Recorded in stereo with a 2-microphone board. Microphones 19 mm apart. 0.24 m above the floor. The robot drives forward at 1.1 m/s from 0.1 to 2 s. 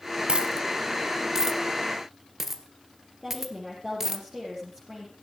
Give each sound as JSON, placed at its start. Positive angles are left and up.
{"t": 0.3, "sound": "a dropped coin", "side_deg": -60, "distance_m": 0.9}
{"t": 3.2, "sound": "a woman speaking", "side_deg": -20, "distance_m": 8.0}